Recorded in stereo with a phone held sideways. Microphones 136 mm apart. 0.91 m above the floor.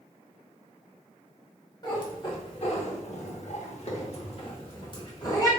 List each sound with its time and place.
1.8 s a cat meowing: 30° left (ahead or behind), 1.0 m